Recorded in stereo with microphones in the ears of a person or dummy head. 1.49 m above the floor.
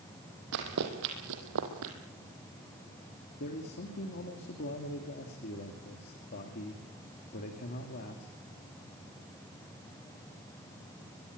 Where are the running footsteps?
60° right (ahead or behind), 4 m; by 1.9 s 70° right (ahead or behind), 4 m.